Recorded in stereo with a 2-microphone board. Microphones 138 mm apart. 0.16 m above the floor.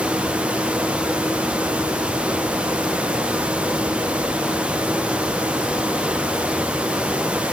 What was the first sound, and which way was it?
Only background noise.